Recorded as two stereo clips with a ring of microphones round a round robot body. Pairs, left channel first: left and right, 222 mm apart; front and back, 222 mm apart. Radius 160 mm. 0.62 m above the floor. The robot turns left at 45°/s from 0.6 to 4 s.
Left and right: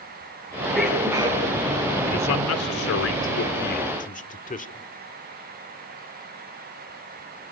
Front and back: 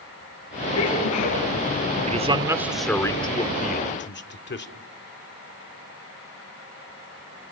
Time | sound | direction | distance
0.7 | a sneeze | 10° left | 7.5 m
2.1 | a man speaking | 125° left | 1.8 m